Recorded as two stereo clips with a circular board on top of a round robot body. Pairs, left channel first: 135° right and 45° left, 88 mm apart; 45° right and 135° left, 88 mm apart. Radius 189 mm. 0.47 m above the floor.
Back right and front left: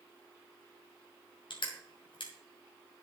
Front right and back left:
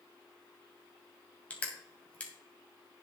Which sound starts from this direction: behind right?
Crushing, at 1.5 s.